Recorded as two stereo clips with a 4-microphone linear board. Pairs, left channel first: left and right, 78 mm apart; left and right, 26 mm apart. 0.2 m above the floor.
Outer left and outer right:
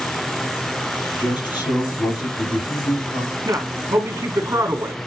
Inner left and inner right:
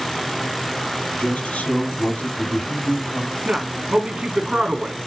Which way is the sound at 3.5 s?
45° right (ahead or behind).